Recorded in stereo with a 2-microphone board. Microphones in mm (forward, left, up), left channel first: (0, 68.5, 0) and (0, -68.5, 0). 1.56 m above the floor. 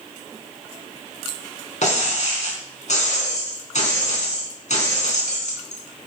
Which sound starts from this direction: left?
Breaking glass, at 1.8 s.